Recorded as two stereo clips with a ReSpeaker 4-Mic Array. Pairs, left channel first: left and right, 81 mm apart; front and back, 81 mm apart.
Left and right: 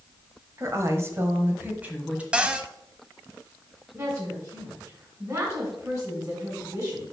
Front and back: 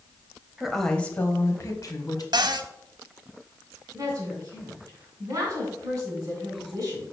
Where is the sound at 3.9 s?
135° right, 3 m.